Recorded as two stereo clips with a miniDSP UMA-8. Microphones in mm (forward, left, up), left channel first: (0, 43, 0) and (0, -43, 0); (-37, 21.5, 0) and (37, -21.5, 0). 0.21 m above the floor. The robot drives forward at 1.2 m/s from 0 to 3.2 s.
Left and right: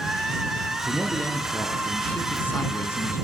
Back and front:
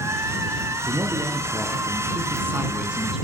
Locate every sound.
0.9 s a man speaking: 15° left, 3.5 m; by 3.2 s 55° left, 1.6 m